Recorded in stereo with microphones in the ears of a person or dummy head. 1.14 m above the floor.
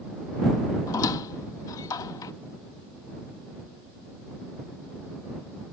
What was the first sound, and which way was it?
A squeak, 25° left (ahead or behind).